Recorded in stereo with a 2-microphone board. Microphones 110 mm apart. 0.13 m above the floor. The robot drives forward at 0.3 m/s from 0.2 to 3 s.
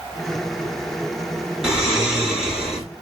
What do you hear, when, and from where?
1.6 s snoring: 5° right (ahead or behind), 1.1 m